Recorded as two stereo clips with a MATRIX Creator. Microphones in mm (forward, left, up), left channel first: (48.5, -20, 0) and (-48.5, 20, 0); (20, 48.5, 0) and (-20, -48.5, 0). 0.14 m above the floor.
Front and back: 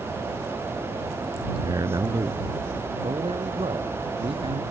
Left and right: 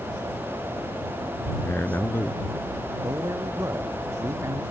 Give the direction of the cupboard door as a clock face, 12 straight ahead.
No cupboard door in this recording.